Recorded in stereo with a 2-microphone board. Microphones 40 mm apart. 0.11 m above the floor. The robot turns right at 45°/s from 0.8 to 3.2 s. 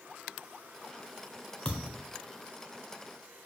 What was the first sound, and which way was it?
A thud, 25° left (ahead or behind).